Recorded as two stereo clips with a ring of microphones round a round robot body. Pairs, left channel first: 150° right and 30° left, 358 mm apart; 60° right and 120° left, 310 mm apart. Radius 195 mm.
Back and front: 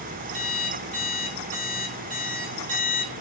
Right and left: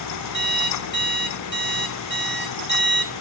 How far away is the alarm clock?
About 2.5 m.